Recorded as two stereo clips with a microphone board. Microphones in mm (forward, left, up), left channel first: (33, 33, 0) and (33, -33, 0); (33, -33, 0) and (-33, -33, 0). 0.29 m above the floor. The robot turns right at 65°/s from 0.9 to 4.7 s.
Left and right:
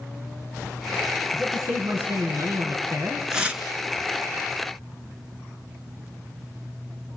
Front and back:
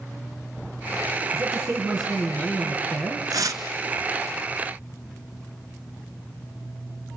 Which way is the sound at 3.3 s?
175° right.